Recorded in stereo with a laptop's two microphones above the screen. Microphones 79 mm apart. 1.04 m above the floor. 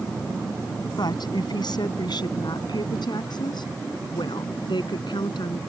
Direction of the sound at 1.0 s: 65° left (ahead or behind).